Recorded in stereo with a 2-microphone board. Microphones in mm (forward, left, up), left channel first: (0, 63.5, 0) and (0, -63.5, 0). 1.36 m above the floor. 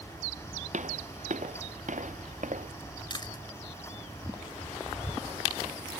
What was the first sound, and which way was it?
Footsteps, 65° right (ahead or behind).